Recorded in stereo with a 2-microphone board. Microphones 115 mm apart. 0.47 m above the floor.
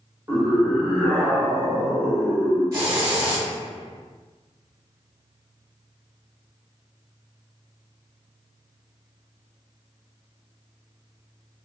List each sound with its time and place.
0.3 s a scream: 30° right (ahead or behind), 1.0 m; by 2.8 s 40° left (ahead or behind), 1.5 m
2.7 s a hiss: 25° right (ahead or behind), 1.8 m